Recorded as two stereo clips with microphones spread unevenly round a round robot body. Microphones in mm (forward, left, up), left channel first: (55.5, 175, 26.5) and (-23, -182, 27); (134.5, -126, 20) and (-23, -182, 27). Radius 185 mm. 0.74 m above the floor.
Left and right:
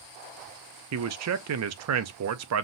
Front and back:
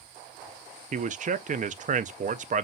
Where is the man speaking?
130° right, 0.5 m.